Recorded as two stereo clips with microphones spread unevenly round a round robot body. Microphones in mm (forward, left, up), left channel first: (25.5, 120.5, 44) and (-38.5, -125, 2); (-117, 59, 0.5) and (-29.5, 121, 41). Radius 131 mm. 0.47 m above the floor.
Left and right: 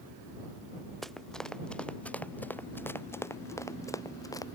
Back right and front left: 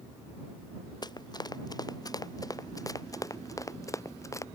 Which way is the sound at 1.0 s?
165° left.